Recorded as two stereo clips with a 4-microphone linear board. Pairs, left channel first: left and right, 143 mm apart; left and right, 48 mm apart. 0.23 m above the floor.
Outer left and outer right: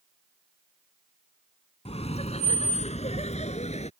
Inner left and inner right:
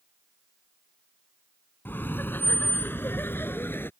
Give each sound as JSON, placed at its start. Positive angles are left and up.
{"t": 1.9, "sound": "laughter", "side_deg": 45}